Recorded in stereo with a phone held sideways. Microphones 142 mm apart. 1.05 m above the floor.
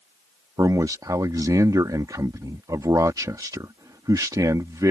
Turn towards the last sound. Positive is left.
turn(degrees=-25)  # may be behind; listen again after turning